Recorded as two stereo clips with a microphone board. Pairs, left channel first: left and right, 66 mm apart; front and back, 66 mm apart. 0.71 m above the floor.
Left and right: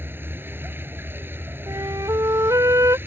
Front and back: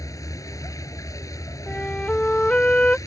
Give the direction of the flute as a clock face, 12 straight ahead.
2 o'clock.